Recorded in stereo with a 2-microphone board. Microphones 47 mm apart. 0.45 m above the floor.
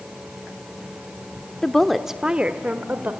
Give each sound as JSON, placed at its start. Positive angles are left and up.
{"t": 1.6, "sound": "a woman speaking", "side_deg": 15, "distance_m": 0.8}